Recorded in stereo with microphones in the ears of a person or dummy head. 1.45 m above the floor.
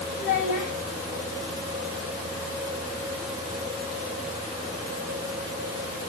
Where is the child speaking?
40° left (ahead or behind), 4.5 m.